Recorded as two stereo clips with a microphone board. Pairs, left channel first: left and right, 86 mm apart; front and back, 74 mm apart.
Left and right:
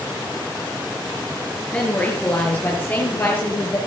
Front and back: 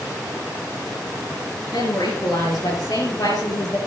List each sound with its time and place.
1.7 s a woman speaking: 15° left, 4.5 m; by 3.8 s 25° left, 5.5 m